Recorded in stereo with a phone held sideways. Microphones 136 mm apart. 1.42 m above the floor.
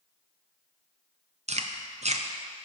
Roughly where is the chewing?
Right.